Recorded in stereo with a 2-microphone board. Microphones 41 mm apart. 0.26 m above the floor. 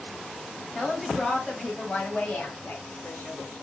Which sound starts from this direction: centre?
A woman speaking, at 0.8 s.